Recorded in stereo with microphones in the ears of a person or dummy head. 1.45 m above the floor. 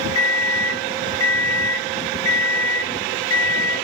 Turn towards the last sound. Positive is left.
turn(degrees=25)  # may be behind; listen again after turning